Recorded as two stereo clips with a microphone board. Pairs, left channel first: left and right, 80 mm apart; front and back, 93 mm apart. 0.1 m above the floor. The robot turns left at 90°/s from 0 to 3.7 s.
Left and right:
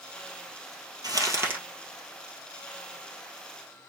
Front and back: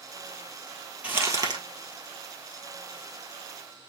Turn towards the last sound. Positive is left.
turn(degrees=15)